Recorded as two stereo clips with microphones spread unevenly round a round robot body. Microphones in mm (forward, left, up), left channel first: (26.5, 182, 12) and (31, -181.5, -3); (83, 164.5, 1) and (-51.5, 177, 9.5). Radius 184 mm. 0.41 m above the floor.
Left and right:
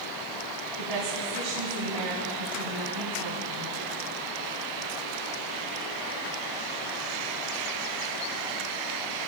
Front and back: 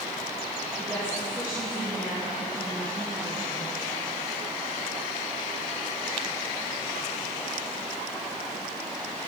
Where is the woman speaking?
110° right, 3.5 m.